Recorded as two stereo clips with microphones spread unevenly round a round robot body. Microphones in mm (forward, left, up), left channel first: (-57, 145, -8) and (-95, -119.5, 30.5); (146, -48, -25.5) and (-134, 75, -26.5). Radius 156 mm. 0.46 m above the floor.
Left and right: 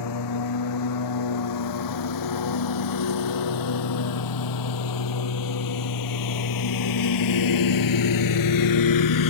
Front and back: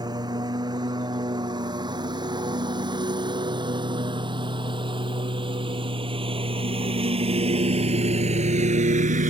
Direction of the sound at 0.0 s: 80° left.